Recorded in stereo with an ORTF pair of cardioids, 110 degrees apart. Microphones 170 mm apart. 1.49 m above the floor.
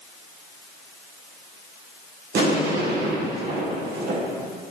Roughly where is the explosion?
Right.